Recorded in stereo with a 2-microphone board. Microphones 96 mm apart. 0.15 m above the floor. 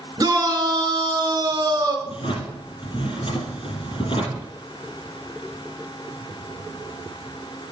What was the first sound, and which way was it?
A shout, 40° right (ahead or behind).